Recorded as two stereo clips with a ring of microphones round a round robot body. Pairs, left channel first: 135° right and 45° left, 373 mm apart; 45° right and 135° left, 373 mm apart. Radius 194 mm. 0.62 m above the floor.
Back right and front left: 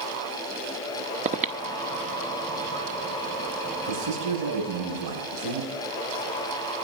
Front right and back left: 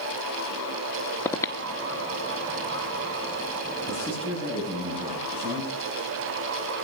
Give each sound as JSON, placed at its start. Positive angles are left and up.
{"t": 1.2, "sound": "breathing", "azimuth_deg": 25, "distance_m": 0.9}
{"t": 3.9, "sound": "a man speaking", "azimuth_deg": 60, "distance_m": 6.5}